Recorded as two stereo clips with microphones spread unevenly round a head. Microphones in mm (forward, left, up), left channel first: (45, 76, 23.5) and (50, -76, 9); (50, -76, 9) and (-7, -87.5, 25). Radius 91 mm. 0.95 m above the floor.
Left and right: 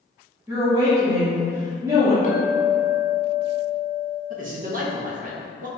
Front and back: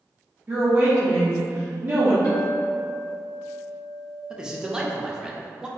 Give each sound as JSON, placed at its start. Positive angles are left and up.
{"t": 0.5, "sound": "a woman speaking", "azimuth_deg": -125, "distance_m": 0.8}
{"t": 2.2, "sound": "a clink", "azimuth_deg": 55, "distance_m": 1.1}
{"t": 4.3, "sound": "a man speaking", "azimuth_deg": -80, "distance_m": 0.7}